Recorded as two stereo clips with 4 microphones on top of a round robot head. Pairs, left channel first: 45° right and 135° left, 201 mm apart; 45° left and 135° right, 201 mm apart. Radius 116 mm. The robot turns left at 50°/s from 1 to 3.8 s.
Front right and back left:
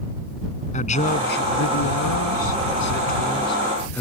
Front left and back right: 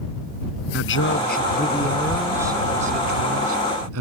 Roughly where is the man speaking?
Ahead.